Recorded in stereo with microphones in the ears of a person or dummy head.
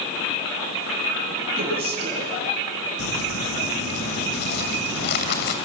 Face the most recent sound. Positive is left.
turn(degrees=60)  # may be behind; listen again after turning